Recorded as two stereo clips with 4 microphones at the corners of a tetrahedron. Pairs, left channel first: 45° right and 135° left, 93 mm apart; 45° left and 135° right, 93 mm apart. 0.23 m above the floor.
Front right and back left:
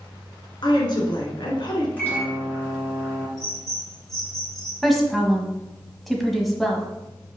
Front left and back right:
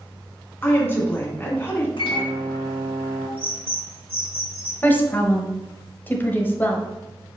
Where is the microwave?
25° left, 2.5 m.